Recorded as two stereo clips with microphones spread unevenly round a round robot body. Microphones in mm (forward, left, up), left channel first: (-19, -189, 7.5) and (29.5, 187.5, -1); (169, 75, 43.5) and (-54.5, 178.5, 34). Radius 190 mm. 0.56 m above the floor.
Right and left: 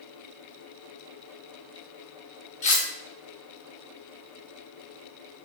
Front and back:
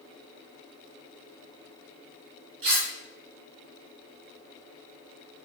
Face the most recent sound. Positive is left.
turn(degrees=-170)